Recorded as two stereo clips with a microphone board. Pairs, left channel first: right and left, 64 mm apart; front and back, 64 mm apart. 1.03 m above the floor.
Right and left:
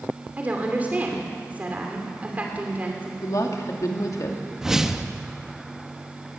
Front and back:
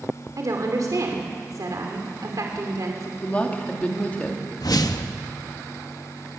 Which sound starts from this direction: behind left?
A woman speaking, at 0.4 s.